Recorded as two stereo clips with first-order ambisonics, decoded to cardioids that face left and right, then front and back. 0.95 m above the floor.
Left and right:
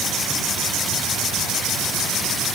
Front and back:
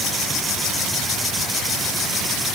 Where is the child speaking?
No child speaking in this recording.